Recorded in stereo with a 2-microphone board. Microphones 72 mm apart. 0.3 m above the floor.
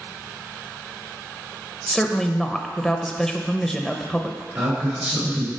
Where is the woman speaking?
5° left (ahead or behind), 0.8 m.